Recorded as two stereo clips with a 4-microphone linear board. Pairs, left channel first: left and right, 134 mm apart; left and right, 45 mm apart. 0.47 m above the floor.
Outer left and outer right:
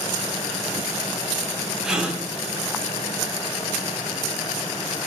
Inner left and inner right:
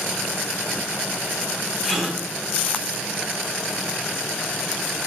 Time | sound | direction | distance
1.8 | a gasp | 5° right (ahead or behind) | 1.1 m